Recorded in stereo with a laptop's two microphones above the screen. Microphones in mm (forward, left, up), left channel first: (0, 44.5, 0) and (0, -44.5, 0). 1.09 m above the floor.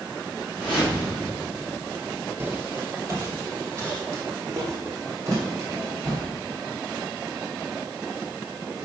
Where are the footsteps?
25° right (ahead or behind), 1.2 m; by 6.2 s 35° right (ahead or behind), 4 m.